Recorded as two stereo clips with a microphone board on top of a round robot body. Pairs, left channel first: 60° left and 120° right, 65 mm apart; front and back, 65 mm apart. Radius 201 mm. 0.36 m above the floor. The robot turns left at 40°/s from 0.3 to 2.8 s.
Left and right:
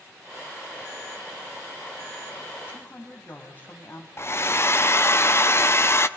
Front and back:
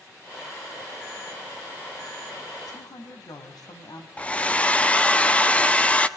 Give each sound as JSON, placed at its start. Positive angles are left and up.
{"t": 2.7, "sound": "a woman speaking", "azimuth_deg": 5, "distance_m": 4.5}
{"t": 4.2, "sound": "a hair dryer", "azimuth_deg": 60, "distance_m": 1.6}